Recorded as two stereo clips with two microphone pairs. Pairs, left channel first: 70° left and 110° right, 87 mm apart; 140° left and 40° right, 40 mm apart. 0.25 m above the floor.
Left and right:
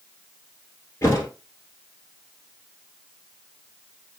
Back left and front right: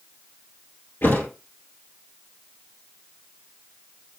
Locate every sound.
1.0 s a thud: 125° left, 1.4 m